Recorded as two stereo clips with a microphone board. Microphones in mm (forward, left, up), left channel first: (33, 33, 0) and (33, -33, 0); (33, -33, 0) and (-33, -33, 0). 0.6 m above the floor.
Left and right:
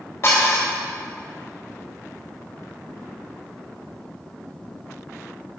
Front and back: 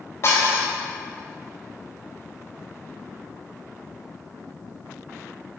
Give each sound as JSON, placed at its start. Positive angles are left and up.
{"t": 0.2, "sound": "dishes clattering", "azimuth_deg": 45, "distance_m": 2.0}